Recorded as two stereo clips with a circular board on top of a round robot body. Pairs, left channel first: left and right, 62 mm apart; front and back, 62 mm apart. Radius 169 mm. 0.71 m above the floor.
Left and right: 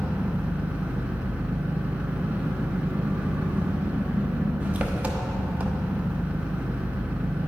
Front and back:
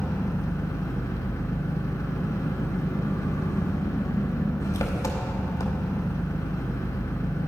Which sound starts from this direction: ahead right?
An engine running, at 0.0 s.